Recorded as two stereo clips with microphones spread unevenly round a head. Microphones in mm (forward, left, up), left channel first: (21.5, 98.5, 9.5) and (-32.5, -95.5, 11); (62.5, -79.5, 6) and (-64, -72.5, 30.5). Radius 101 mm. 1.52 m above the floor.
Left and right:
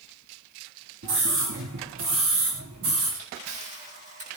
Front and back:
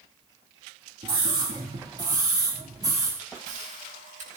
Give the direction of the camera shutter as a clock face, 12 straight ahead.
5 o'clock.